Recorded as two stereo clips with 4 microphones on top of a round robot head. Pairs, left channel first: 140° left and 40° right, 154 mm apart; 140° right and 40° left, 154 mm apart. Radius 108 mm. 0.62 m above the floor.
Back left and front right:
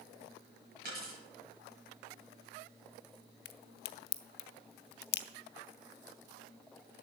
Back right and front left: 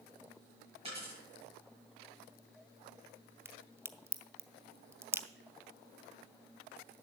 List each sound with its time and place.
0.8 s a dropped coin: 15° right, 7 m
3.5 s a crack: 115° left, 0.6 m